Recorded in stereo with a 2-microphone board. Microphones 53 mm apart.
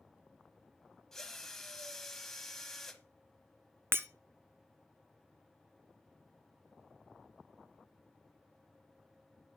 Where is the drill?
5° left (ahead or behind), 1.0 m.